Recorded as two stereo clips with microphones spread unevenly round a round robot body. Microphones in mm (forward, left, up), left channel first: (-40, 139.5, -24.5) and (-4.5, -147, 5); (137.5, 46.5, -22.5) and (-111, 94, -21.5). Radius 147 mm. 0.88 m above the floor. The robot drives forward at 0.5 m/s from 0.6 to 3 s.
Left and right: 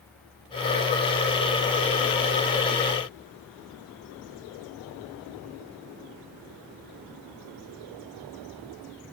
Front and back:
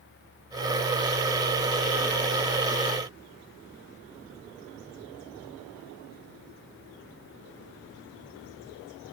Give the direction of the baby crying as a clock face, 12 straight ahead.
No baby crying in this recording.